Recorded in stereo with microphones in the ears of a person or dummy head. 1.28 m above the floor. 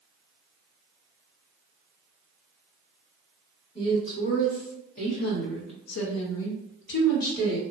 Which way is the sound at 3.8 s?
25° left (ahead or behind).